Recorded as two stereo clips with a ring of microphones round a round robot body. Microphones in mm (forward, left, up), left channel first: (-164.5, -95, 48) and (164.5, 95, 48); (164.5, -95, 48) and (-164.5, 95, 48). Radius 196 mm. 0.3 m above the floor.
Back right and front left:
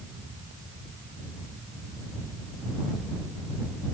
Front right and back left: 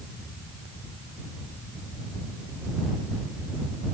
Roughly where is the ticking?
No ticking in this recording.